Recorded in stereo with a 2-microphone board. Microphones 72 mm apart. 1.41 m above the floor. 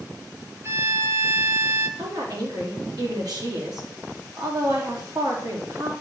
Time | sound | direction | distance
0.6 | a violin | 40° right (ahead or behind) | 1.6 m
2.0 | a woman speaking | 65° right (ahead or behind) | 4 m